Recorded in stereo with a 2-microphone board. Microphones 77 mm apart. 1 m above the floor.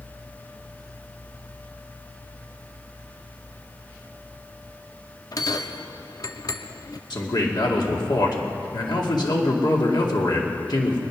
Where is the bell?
50° left (ahead or behind), 0.7 m.